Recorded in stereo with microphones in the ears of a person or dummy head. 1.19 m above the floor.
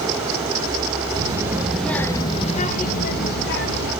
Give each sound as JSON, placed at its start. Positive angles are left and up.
{"t": 1.1, "sound": "a child speaking", "side_deg": -25, "distance_m": 1.2}